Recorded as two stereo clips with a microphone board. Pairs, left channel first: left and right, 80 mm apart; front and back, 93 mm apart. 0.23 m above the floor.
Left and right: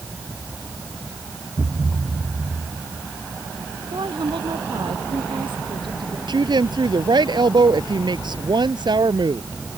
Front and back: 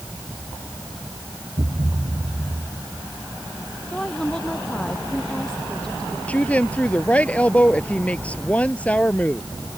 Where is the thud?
155° right.